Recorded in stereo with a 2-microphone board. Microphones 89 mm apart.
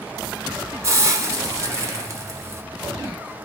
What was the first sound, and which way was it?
A hiss, 30° right (ahead or behind).